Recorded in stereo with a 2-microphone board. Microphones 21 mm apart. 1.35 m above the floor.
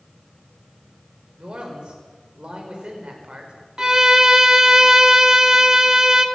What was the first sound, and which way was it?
A man speaking, 55° right (ahead or behind).